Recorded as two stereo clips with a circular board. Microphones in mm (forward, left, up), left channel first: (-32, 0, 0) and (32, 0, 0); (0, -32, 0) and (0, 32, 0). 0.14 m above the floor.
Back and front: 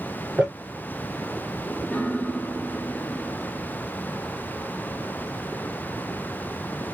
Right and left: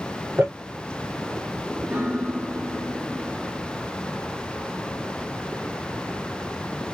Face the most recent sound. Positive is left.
turn(degrees=140)